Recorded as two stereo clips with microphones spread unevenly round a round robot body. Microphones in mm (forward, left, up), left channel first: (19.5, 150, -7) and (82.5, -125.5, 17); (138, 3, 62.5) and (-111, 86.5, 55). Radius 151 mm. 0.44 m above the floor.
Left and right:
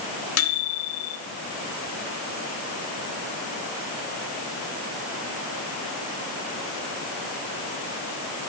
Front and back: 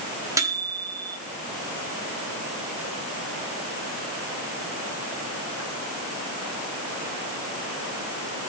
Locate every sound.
0.4 s a microwave: 85° left, 1.7 m